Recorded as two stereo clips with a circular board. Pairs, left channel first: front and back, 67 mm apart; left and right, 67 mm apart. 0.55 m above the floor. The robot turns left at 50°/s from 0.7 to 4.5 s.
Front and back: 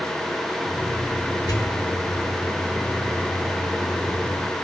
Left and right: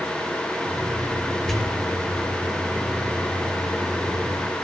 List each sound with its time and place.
1.5 s a pop: 10° left, 2.5 m; by 1.8 s 5° right, 2.5 m